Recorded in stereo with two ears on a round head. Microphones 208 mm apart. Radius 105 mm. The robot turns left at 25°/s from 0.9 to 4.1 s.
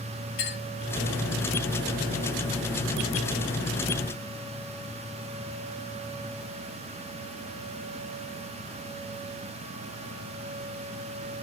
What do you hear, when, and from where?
0.4 s a clink: 50° left (ahead or behind), 3 m